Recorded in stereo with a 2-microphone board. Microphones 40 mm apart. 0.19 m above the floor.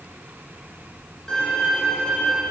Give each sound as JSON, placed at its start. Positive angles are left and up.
{"t": 1.3, "sound": "a violin", "side_deg": 15, "distance_m": 9.5}